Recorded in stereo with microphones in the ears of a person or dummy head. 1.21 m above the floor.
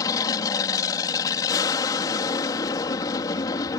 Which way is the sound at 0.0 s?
20° left (ahead or behind).